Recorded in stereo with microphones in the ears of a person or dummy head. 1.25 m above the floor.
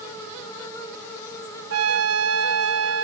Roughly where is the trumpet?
Right.